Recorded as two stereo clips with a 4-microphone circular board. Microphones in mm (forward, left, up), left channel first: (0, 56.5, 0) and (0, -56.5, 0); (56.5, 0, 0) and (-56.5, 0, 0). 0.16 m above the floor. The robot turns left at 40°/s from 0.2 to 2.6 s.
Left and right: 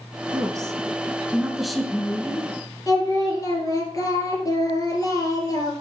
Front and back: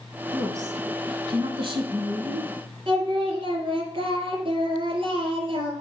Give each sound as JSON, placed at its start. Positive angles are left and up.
{"t": 0.3, "sound": "a woman speaking", "azimuth_deg": -125, "distance_m": 1.5}
{"t": 2.9, "sound": "singing", "azimuth_deg": 145, "distance_m": 2.5}